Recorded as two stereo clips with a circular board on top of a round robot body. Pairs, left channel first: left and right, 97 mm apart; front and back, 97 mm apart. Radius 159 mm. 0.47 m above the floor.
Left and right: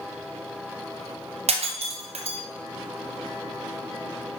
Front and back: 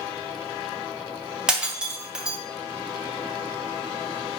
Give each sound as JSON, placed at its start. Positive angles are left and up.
{"t": 1.5, "sound": "breaking glass", "azimuth_deg": -100, "distance_m": 2.5}